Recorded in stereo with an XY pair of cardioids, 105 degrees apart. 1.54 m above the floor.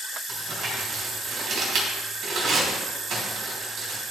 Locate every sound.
0.3 s crumpling: 55° right, 4 m